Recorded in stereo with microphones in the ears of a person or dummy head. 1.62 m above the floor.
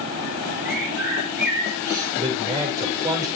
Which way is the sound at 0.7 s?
5° right (ahead or behind).